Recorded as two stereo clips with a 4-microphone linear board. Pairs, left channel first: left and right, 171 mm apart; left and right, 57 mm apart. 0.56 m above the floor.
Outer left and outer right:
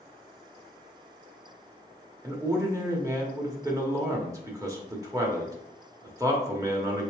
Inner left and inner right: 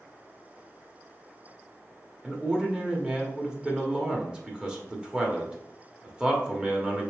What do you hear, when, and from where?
2.2 s a man speaking: 20° right (ahead or behind), 1.0 m